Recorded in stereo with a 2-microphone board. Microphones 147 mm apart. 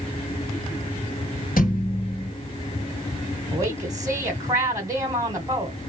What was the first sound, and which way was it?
A thud, 70° left (ahead or behind).